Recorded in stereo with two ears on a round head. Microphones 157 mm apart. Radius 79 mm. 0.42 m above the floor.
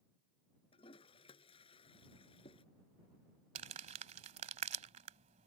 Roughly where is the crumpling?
Right.